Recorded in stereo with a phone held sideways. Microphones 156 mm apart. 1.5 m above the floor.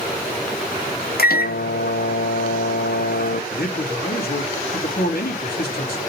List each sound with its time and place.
1.2 s a microwave: 75° left (ahead or behind), 0.7 m
3.5 s a man speaking: 80° left, 3 m